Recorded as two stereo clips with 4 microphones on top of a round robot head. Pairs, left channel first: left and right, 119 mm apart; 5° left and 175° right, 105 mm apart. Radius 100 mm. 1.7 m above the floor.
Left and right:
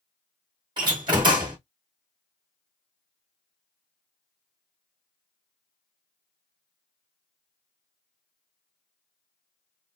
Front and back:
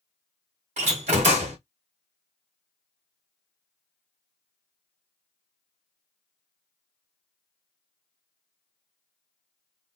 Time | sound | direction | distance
0.8 | a door slam | 155° right | 0.9 m